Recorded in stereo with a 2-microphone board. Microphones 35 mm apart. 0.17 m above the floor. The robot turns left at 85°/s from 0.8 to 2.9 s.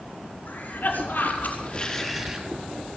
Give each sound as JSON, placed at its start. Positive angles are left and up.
{"t": 0.5, "sound": "a cough", "azimuth_deg": 110, "distance_m": 5.5}